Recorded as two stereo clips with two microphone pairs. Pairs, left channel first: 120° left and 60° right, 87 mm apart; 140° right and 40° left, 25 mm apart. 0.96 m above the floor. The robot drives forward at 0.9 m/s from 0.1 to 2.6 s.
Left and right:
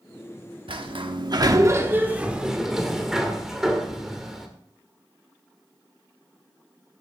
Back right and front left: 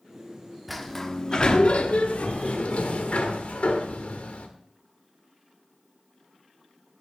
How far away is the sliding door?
About 1.0 m.